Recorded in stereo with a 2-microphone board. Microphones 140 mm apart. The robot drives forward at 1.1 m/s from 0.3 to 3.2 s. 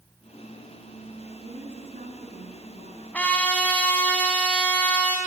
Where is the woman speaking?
65° right (ahead or behind), 5 m; by 3.0 s 80° right, 4.5 m.